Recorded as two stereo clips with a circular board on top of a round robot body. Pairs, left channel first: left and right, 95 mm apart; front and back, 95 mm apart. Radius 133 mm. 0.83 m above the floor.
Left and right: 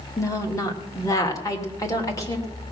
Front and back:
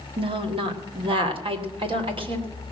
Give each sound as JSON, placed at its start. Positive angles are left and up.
{"t": 0.2, "sound": "a woman speaking", "azimuth_deg": 150, "distance_m": 1.9}